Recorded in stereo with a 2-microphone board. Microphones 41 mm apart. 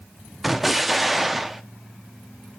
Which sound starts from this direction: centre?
An explosion, at 0.4 s.